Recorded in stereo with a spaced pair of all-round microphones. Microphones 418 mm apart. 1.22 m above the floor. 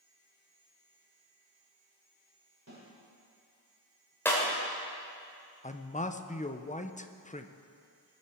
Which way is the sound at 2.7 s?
40° right (ahead or behind).